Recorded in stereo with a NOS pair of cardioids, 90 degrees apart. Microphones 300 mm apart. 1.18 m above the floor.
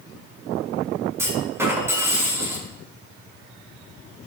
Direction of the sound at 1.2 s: 10° right.